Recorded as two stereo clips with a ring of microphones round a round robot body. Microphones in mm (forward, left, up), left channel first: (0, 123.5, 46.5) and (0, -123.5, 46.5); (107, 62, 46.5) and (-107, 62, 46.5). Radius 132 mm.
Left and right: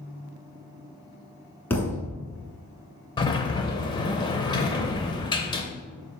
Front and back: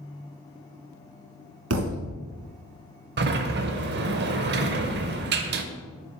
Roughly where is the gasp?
I don't hear a gasp.